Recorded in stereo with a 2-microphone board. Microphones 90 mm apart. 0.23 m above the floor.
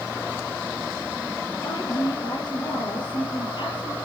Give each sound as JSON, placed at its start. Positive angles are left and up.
{"t": 1.6, "sound": "a woman speaking", "side_deg": 60, "distance_m": 6.0}